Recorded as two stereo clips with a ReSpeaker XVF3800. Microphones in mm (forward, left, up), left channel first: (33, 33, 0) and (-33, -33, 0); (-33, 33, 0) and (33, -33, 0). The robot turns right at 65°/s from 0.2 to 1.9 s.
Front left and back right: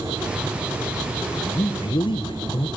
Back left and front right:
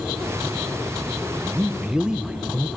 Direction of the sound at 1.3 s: 5° right.